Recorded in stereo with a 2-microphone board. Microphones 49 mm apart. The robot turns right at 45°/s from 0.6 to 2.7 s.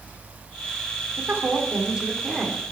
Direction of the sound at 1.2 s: 55° right.